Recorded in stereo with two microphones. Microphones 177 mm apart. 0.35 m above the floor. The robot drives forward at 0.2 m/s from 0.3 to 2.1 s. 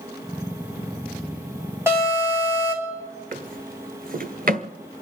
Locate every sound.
1.9 s an alarm: 15° right (ahead or behind), 4 m
3.3 s a drawer: 55° right (ahead or behind), 1.3 m